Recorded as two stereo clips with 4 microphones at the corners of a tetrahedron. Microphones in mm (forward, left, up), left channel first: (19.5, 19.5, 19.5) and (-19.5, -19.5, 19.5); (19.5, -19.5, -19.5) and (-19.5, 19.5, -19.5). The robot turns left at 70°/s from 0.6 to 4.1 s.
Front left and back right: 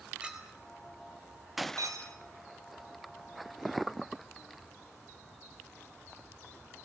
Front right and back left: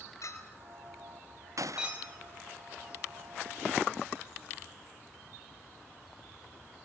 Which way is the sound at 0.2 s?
60° right.